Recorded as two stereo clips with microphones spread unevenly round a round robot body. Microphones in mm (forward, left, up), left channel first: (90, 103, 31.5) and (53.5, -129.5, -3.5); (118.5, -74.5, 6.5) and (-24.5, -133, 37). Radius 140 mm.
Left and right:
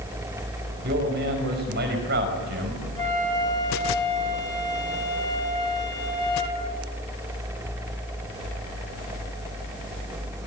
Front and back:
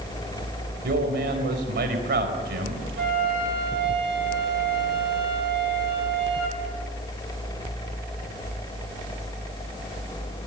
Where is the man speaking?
155° right, 5 m.